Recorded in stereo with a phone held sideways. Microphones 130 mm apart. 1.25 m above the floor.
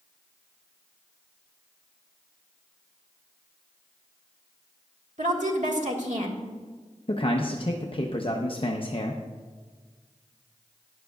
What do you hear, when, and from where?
5.2 s a woman speaking: 65° right (ahead or behind), 1.7 m
7.1 s a man speaking: 40° left (ahead or behind), 0.7 m